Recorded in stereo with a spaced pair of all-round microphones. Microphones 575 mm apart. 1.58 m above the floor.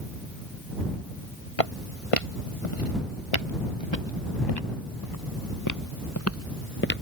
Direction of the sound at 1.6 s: 70° left (ahead or behind).